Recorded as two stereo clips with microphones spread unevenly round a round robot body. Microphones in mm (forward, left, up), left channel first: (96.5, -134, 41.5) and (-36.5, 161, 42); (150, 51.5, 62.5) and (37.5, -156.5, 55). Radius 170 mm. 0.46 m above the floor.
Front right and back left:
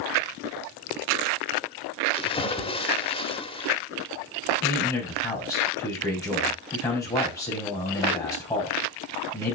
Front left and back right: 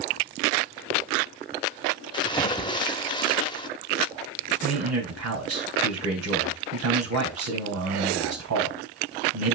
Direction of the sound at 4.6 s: 145° right.